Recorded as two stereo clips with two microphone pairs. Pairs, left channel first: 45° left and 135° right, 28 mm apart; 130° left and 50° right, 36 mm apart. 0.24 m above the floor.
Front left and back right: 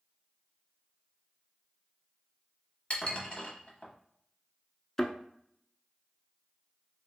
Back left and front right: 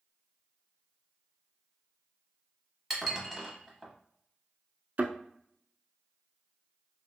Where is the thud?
25° right, 0.5 m.